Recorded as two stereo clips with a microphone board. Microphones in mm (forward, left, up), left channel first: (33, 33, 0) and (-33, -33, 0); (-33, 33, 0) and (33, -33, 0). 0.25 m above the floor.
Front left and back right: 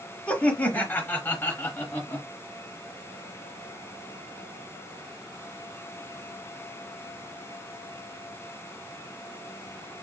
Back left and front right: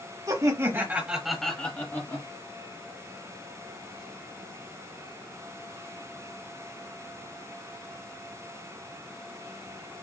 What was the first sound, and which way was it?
Laughter, 25° right.